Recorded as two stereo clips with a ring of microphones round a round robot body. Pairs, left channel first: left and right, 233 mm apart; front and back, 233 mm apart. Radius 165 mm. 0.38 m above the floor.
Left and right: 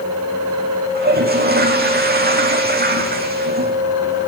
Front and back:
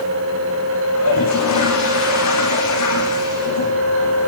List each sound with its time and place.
0.9 s a toilet flushing: 40° right, 6 m